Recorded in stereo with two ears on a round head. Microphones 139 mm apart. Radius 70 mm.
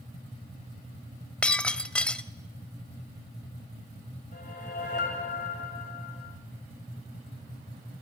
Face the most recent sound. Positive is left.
turn(degrees=55)  # may be behind; listen again after turning